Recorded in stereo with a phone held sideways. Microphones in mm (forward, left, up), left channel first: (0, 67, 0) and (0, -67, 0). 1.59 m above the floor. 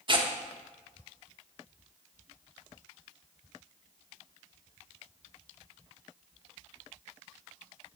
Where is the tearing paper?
35° right (ahead or behind), 0.9 m.